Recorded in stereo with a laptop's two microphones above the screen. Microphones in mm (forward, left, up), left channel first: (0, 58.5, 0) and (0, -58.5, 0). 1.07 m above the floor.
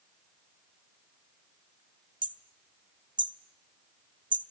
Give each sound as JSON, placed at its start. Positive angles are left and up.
{"t": 2.2, "sound": "hammering", "side_deg": -40, "distance_m": 1.0}